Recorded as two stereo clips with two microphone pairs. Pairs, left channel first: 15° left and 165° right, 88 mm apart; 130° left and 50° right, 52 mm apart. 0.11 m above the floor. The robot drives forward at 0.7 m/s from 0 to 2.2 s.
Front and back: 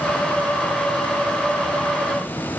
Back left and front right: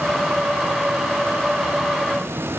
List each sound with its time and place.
Only background noise.